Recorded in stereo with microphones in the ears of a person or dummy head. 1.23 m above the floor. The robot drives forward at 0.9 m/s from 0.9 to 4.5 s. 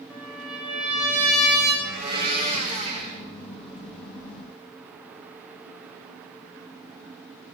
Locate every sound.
0.1 s a trumpet: 5° right (ahead or behind), 6.5 m
1.8 s a blender: 50° right (ahead or behind), 2.5 m; by 3.2 s 35° right (ahead or behind), 3.5 m